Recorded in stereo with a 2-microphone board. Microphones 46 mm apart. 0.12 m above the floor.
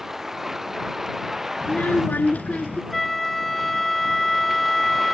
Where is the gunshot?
No gunshot in this recording.